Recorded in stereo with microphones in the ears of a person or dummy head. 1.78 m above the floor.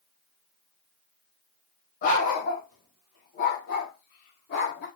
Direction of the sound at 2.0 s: 55° left (ahead or behind).